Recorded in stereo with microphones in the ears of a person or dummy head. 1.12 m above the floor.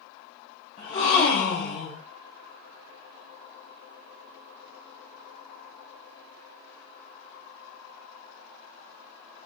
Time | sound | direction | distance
0.8 | a gasp | 30° left (ahead or behind) | 1.6 m